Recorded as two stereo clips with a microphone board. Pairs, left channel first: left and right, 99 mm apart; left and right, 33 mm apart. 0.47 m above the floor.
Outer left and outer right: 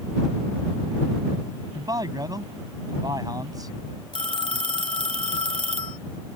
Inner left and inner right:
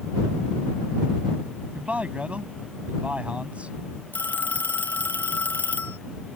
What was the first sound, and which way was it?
A man speaking, 40° right (ahead or behind).